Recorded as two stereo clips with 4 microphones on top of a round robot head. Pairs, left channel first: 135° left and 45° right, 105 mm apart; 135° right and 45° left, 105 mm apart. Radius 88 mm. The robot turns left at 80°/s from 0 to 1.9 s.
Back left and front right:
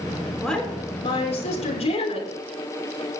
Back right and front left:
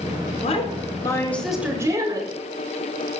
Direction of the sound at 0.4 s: 135° right.